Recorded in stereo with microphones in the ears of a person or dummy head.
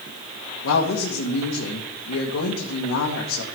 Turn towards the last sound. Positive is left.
turn(degrees=80)